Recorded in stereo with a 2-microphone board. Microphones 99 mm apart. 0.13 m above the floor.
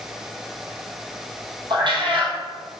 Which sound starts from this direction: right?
A cat meowing, at 1.7 s.